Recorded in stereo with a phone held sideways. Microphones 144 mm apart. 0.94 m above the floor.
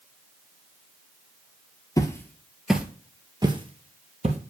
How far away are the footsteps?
About 1.2 m.